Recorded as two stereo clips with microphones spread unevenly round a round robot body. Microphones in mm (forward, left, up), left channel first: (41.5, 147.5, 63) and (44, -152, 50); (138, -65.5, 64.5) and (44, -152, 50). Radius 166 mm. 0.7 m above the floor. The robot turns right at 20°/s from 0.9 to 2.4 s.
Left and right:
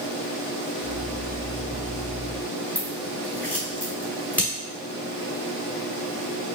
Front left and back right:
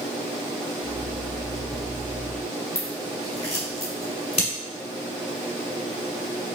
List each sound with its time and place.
2.8 s scissors: 5° left, 1.7 m